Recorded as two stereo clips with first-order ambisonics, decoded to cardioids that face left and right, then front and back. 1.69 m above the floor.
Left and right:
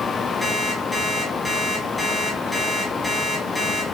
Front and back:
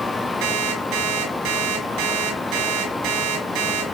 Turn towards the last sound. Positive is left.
turn(degrees=170)